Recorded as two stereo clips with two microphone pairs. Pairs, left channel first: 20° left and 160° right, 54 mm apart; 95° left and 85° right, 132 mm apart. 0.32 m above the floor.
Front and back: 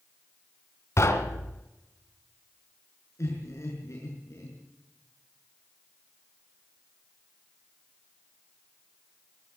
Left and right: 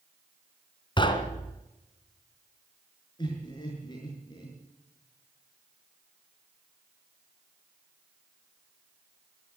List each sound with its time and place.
1.0 s knocking: 45° left, 2 m
3.2 s laughter: 40° left, 5.5 m